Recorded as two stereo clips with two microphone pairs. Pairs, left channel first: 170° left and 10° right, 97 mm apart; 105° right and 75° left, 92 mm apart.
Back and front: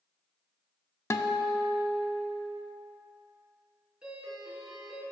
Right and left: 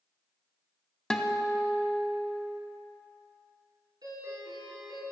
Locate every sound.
1.1 s a guitar: straight behind, 0.6 m
4.0 s a doorbell: 70° left, 3.5 m